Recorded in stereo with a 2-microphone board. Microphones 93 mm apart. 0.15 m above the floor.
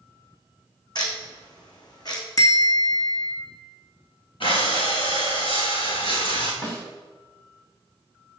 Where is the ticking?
45° left (ahead or behind), 3 m.